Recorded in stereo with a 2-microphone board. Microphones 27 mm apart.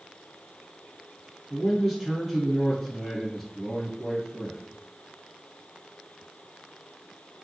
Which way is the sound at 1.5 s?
Centre (ahead or behind).